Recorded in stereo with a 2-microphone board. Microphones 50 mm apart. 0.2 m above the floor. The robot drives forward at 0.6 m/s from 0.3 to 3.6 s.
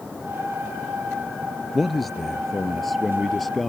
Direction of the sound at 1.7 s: Centre (ahead or behind).